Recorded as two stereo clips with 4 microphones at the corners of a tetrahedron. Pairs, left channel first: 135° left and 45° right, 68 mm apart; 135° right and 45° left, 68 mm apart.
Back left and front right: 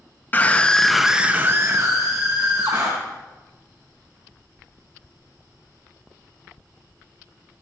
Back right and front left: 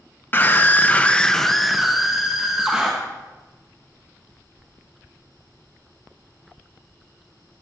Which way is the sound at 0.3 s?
Straight behind.